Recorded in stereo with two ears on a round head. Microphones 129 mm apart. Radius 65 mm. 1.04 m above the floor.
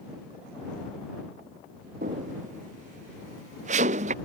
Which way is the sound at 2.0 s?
60° right (ahead or behind).